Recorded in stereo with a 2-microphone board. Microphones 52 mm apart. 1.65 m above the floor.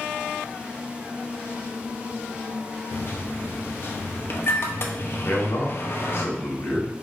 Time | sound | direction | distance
2.9 | a microwave | 50° left (ahead or behind) | 0.6 m
5.2 | a man speaking | 65° left (ahead or behind) | 1.5 m